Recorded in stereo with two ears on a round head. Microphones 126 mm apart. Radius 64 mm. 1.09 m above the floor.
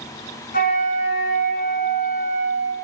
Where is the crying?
No crying in this recording.